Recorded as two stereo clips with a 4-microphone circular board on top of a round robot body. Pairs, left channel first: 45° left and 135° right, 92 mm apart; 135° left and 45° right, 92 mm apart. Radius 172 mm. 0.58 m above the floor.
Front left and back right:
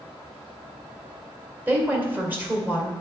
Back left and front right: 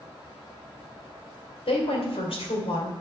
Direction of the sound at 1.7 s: 155° left.